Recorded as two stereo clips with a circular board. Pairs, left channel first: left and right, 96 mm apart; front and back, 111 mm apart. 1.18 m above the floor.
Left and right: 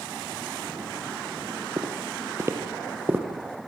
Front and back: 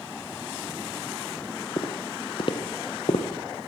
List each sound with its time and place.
1.8 s footsteps: 40° right, 3 m; by 3.2 s 20° right, 3 m